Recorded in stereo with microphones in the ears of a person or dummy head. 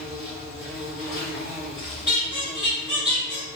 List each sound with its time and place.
0.0 s an insect: 50° left (ahead or behind), 1.3 m
2.1 s a squeak: 25° left (ahead or behind), 1.2 m